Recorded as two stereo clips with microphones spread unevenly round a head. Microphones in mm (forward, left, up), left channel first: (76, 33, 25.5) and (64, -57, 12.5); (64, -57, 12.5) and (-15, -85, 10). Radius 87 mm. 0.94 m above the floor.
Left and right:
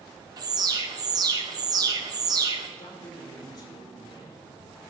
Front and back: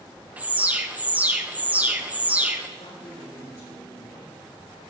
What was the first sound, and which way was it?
An alarm, 95° right.